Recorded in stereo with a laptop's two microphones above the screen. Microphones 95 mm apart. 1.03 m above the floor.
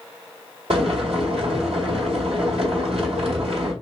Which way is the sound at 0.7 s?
85° right.